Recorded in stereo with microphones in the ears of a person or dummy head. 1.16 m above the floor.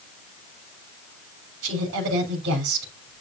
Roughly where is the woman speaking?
Right.